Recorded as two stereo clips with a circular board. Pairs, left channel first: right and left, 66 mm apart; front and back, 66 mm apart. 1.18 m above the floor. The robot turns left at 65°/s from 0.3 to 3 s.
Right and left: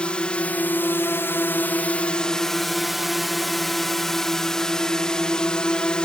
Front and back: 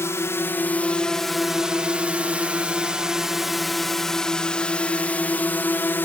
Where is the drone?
20° right; by 6.1 s 25° right.